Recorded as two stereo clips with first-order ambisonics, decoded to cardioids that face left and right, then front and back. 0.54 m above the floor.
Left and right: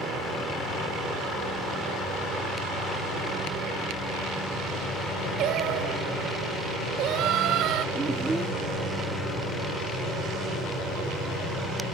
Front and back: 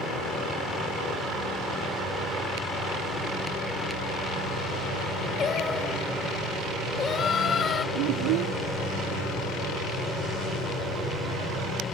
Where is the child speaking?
170° right.